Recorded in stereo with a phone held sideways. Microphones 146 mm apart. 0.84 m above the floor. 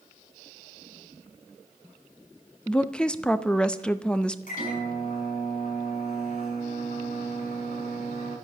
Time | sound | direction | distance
2.7 | a woman speaking | 5° left (ahead or behind) | 0.6 m
4.5 | a microwave | 70° left (ahead or behind) | 6 m